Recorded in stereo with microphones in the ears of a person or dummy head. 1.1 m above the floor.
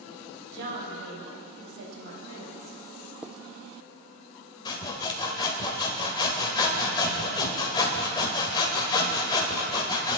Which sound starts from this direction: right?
A woman speaking, at 0.5 s.